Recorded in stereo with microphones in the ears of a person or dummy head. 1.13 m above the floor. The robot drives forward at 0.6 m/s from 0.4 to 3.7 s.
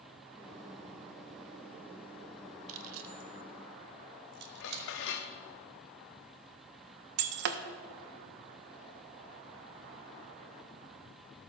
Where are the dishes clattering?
60° left (ahead or behind), 0.9 m.